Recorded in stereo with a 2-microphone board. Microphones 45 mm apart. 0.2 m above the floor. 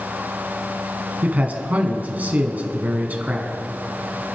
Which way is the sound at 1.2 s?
35° right (ahead or behind).